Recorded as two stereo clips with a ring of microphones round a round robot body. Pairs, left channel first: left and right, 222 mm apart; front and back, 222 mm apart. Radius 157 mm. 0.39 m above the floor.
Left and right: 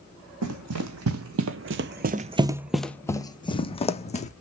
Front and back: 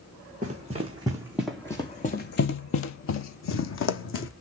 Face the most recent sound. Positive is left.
turn(degrees=30)